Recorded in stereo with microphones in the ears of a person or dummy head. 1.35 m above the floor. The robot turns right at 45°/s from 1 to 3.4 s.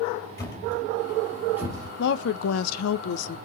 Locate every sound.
0.4 s a thud: 20° left (ahead or behind), 3.5 m; by 1.9 s 20° right (ahead or behind), 3.5 m
2.0 s a woman speaking: 60° left, 0.9 m; by 3.4 s 125° left, 0.9 m